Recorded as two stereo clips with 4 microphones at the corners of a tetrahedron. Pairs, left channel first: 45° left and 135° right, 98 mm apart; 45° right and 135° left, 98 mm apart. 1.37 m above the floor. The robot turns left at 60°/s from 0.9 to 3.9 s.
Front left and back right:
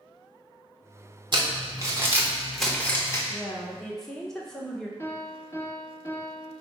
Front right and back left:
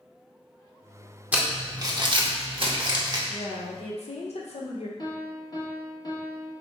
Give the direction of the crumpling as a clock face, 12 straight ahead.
5 o'clock.